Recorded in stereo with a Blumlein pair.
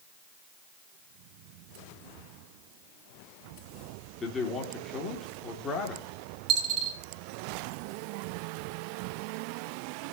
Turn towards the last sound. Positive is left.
turn(degrees=-30)